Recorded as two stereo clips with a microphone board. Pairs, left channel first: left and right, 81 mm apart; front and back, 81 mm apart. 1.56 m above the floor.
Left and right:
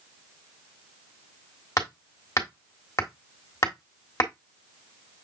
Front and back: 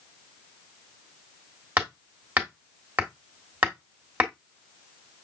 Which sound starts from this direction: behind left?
Hammering, at 1.8 s.